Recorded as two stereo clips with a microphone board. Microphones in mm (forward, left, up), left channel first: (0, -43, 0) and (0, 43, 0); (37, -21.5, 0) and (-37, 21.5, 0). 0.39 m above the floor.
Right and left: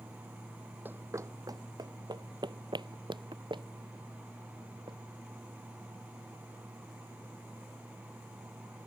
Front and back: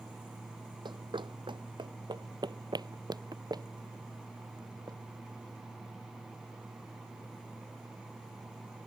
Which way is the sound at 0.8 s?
155° left.